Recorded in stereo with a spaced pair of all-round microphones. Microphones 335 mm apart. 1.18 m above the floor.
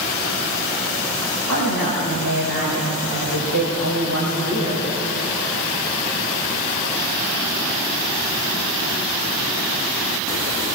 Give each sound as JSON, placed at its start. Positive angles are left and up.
{"t": 1.5, "sound": "a woman speaking", "side_deg": -60, "distance_m": 6.0}